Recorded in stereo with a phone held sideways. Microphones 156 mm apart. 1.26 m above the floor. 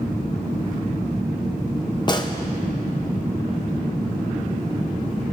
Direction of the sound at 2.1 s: 30° left (ahead or behind).